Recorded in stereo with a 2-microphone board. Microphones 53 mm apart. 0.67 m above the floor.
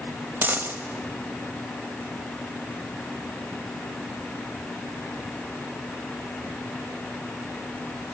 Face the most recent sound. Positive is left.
turn(degrees=-40)  # may be behind; listen again after turning